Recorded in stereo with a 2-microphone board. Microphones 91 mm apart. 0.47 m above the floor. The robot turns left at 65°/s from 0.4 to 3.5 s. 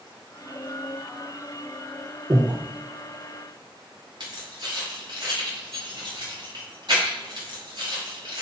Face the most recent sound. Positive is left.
turn(degrees=-55)  # may be behind; listen again after turning